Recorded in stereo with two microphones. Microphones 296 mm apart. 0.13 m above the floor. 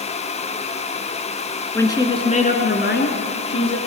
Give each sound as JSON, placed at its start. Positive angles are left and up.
{"t": 1.8, "sound": "a woman speaking", "side_deg": 10, "distance_m": 1.4}